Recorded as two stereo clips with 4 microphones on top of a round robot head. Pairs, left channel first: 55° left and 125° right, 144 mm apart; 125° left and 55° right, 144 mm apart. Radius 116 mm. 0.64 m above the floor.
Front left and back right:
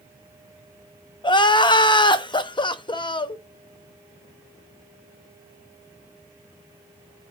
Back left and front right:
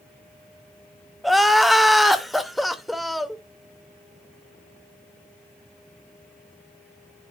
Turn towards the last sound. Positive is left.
turn(degrees=35)